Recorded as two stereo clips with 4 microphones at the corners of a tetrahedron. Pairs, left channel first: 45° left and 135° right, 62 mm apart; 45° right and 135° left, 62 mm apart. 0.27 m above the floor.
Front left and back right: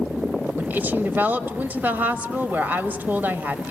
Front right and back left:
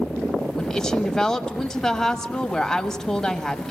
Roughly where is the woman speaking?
Behind right.